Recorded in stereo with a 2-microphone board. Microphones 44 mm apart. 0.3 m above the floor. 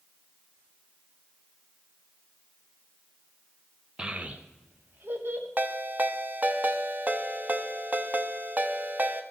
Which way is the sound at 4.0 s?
20° right (ahead or behind).